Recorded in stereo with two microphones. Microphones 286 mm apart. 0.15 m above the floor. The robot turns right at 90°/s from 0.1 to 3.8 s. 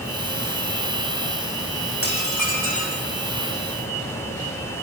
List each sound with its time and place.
2.0 s dishes clattering: 45° left, 6 m; by 3.0 s 140° left, 6 m